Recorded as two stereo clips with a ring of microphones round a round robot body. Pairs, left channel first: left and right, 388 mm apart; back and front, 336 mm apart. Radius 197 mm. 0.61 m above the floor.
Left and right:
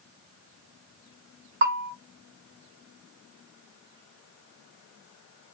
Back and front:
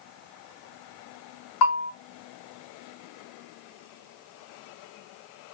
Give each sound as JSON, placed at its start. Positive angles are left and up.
{"t": 1.6, "sound": "a bell", "azimuth_deg": -150, "distance_m": 0.7}